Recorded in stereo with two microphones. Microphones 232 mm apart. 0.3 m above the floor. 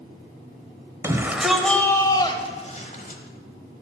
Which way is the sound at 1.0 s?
15° right (ahead or behind).